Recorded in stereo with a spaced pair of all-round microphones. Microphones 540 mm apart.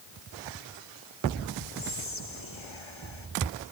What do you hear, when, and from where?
1.8 s whispering: 60° left (ahead or behind)